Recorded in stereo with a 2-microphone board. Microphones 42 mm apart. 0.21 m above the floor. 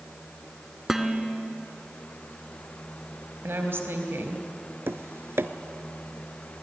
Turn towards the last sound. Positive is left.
turn(degrees=-75)  # may be behind; listen again after turning